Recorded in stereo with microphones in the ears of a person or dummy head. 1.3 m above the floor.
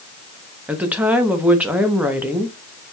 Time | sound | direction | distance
0.7 | a woman speaking | 10° right (ahead or behind) | 1.0 m